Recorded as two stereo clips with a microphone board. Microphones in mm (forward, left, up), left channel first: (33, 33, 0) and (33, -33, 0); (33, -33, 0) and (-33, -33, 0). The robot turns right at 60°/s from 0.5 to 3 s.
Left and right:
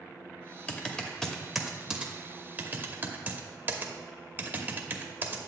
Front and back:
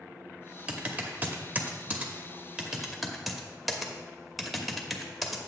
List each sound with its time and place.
0.7 s typing on a keyboard: 130° left, 0.9 m; by 5.4 s 90° right, 0.9 m